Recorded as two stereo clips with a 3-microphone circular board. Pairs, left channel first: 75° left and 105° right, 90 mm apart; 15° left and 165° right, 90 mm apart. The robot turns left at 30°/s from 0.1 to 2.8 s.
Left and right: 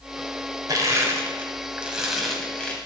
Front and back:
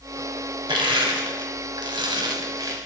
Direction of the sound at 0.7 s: 150° right.